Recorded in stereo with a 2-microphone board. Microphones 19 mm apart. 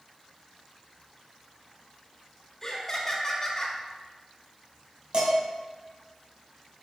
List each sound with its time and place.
2.6 s laughter: 25° left (ahead or behind), 0.9 m
5.1 s dishes clattering: 65° right (ahead or behind), 2.0 m